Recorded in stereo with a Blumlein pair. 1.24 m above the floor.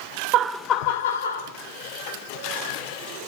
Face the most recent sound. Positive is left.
turn(degrees=70)